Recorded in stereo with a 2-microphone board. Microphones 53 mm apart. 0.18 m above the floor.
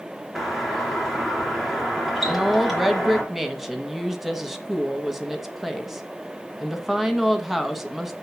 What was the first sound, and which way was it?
A doorbell, 5° right (ahead or behind).